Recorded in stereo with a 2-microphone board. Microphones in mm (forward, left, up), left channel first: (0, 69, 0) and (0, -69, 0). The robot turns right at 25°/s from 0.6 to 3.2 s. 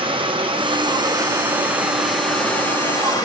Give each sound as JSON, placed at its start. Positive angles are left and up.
{"t": 0.0, "sound": "running water", "azimuth_deg": -40, "distance_m": 0.8}